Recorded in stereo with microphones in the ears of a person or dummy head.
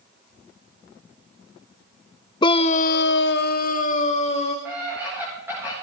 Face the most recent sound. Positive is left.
turn(degrees=-10)  # may be behind; listen again after turning